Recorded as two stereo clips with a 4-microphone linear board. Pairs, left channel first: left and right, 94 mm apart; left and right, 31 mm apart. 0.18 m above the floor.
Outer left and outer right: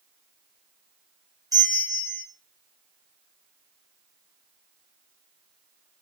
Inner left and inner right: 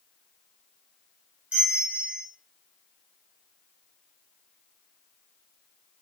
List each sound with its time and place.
1.5 s a bell: 50° right (ahead or behind), 2.5 m